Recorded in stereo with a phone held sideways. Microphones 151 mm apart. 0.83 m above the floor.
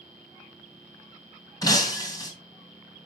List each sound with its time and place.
1.6 s breaking glass: 25° left (ahead or behind), 2.5 m